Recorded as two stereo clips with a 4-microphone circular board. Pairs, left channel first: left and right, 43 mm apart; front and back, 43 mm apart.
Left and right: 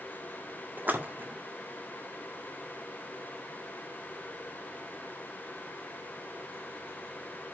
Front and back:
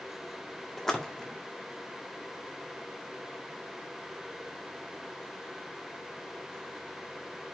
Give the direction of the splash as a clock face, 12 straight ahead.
3 o'clock.